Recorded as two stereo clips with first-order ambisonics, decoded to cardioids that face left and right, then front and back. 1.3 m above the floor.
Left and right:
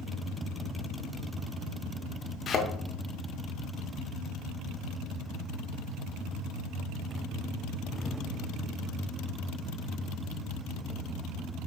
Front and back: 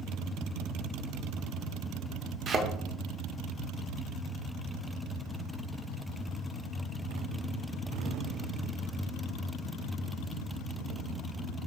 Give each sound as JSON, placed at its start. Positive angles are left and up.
{"t": 2.5, "sound": "a thud", "azimuth_deg": 130, "distance_m": 0.8}